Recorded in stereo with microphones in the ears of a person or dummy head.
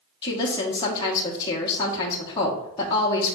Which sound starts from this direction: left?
A woman speaking, at 0.2 s.